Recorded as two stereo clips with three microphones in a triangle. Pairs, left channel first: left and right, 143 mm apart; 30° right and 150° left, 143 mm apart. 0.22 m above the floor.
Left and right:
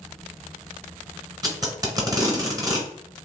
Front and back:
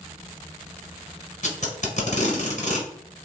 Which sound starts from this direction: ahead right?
Tape being pulled, at 1.4 s.